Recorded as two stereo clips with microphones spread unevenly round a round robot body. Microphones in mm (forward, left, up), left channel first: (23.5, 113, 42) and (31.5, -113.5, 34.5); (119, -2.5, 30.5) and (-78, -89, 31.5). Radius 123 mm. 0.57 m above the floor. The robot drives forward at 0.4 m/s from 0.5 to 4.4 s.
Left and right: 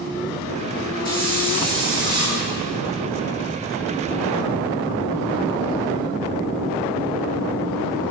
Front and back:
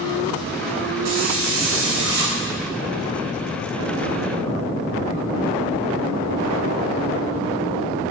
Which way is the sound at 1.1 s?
155° right.